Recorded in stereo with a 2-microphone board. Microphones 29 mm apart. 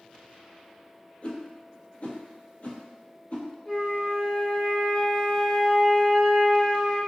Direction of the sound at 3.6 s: 35° left (ahead or behind).